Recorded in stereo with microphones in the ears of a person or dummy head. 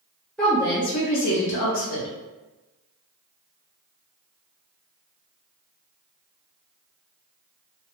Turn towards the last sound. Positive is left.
turn(degrees=70)  # may be behind; listen again after turning